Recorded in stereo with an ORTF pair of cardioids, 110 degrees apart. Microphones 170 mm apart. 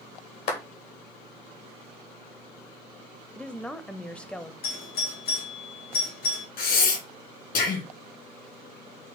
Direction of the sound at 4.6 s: 70° left.